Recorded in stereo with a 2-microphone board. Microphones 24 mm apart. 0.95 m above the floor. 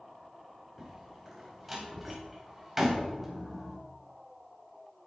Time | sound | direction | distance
0.8 | a door slam | 10° right (ahead or behind) | 4 m